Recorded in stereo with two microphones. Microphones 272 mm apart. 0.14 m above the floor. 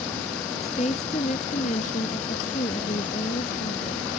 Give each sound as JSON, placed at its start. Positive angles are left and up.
{"t": 0.6, "sound": "a woman speaking", "side_deg": 25}